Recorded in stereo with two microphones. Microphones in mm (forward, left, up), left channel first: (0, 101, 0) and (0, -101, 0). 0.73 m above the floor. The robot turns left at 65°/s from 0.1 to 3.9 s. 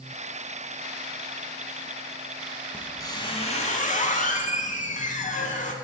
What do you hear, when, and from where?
2.7 s a squeak: 170° left, 0.7 m; by 5.7 s 95° left, 0.7 m